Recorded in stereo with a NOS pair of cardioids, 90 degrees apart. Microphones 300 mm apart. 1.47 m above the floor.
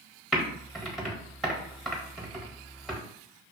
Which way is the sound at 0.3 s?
Straight ahead.